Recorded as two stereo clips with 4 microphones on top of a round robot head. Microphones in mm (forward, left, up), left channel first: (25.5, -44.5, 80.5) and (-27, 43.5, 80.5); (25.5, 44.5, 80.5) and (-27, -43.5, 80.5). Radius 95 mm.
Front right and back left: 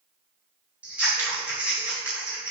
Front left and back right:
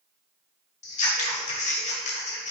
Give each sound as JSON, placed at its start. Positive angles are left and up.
{"t": 0.8, "sound": "scissors", "azimuth_deg": 45, "distance_m": 1.9}